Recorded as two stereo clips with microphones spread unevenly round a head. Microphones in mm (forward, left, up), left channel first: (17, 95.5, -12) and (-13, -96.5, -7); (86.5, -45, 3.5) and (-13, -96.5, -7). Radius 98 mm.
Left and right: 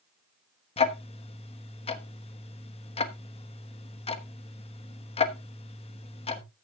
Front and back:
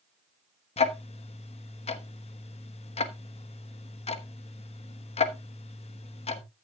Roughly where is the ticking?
Ahead.